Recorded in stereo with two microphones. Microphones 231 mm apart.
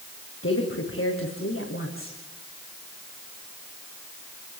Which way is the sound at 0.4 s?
65° left (ahead or behind).